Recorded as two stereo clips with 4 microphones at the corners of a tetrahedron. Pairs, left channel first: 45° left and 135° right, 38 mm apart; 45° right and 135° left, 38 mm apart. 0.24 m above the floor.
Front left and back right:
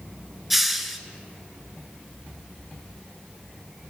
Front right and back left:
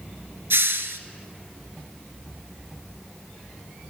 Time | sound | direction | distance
0.5 | a hiss | 140° left | 0.6 m